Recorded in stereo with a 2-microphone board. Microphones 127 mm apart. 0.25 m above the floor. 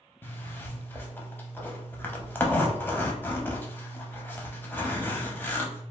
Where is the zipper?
15° left (ahead or behind), 0.6 m.